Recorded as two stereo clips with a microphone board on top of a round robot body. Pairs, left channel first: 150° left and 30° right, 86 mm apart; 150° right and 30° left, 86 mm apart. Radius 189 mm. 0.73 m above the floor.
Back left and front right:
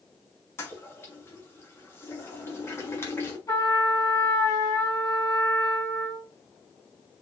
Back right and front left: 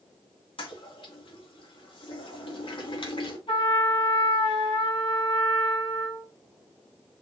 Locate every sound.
0.6 s a toilet flushing: 150° right, 2.5 m
3.5 s a trumpet: 160° right, 3.5 m